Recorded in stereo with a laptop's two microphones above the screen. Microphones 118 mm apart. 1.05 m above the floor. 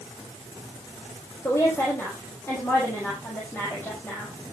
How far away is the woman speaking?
About 5.5 m.